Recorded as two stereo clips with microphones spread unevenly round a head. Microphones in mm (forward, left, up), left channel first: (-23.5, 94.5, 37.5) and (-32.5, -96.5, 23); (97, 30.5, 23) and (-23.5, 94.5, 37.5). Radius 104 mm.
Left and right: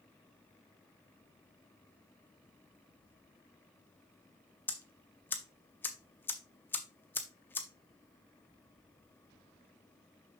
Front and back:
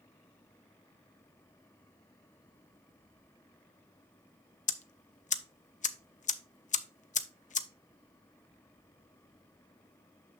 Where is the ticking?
5° left, 0.7 m.